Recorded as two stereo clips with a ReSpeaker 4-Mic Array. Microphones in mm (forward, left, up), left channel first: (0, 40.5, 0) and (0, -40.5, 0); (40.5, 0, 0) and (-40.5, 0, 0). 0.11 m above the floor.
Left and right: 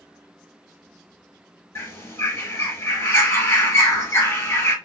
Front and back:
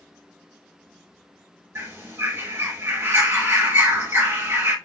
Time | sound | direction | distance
1.8 | a bird | 135° left | 1.1 m